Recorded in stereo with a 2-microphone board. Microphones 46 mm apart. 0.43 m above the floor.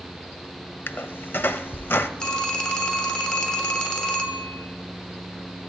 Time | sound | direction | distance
0.9 | a squeak | 55° left (ahead or behind) | 0.6 m
2.2 | a phone ringing | 20° left (ahead or behind) | 1.0 m